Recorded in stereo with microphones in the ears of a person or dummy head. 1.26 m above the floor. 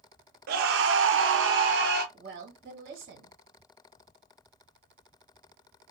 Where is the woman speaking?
60° right (ahead or behind), 1.5 m.